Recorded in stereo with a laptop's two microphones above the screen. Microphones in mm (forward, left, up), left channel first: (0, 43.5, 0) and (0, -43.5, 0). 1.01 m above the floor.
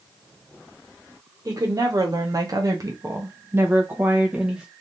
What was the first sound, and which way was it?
A woman speaking, 45° right (ahead or behind).